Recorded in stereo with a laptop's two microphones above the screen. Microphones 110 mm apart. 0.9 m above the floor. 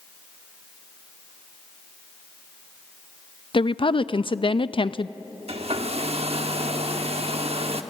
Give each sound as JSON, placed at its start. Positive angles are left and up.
{"t": 3.5, "sound": "a woman speaking", "side_deg": 50, "distance_m": 0.5}
{"t": 5.5, "sound": "a hair dryer", "side_deg": -65, "distance_m": 1.0}